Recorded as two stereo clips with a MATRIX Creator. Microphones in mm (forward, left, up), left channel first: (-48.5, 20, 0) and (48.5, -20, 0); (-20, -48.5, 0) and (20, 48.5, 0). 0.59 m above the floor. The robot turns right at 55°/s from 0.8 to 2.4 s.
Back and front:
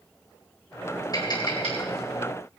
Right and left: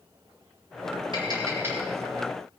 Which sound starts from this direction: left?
Tapping, at 1.1 s.